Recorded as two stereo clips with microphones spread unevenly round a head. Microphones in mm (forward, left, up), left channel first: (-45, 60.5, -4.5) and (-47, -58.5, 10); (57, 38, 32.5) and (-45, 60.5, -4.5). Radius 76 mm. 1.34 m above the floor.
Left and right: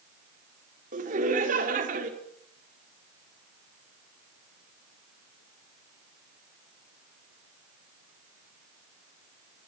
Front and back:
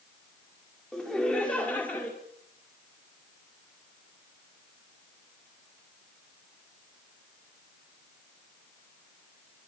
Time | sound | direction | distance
0.9 | laughter | 100° right | 5 m